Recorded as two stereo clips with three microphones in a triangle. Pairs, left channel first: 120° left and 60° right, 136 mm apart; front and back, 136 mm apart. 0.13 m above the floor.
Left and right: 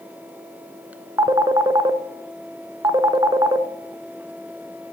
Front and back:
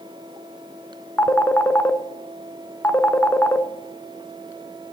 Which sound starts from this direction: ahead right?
A phone ringing, at 1.2 s.